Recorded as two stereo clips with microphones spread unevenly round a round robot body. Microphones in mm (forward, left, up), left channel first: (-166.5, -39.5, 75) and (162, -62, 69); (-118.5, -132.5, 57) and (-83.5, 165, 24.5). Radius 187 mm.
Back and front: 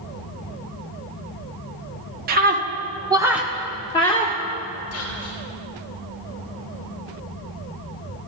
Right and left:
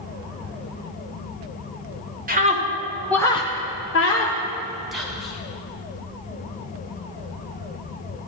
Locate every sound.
2.3 s a scream: 45° left, 1.2 m; by 4.4 s 120° right, 1.3 m
4.9 s whispering: 165° left, 1.8 m